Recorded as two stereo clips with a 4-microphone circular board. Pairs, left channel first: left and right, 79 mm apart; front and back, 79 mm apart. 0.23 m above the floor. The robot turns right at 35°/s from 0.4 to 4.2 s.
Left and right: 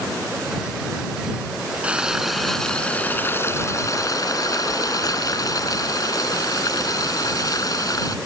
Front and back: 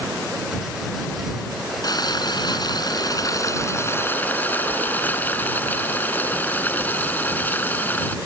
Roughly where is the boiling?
Ahead.